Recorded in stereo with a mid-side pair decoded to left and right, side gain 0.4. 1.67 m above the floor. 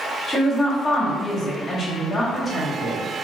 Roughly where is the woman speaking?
Ahead left.